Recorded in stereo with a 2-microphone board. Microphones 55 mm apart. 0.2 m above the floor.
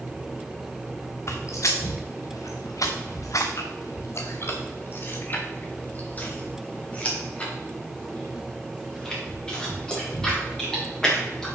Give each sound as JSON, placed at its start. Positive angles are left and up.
{"t": 1.3, "sound": "footsteps", "side_deg": 55, "distance_m": 1.5}